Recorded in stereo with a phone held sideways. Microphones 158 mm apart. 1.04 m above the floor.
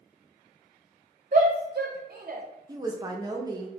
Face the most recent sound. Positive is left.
turn(degrees=-25)  # may be behind; listen again after turning